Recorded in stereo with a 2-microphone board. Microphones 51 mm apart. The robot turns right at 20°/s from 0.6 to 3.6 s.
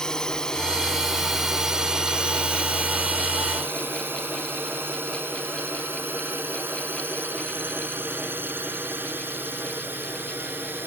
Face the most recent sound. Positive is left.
turn(degrees=-40)  # may be behind; listen again after turning